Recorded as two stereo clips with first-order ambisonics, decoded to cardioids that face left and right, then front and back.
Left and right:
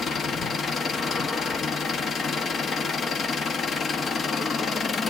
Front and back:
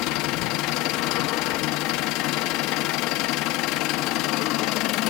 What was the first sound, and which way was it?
An engine running, 25° left.